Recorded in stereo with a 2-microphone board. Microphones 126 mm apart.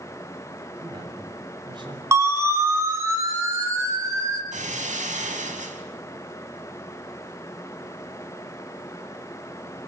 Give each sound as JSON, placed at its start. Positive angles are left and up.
{"t": 0.8, "sound": "a man speaking", "side_deg": -35, "distance_m": 7.0}
{"t": 2.1, "sound": "a siren", "side_deg": -20, "distance_m": 5.0}
{"t": 4.5, "sound": "breaking glass", "side_deg": -75, "distance_m": 4.5}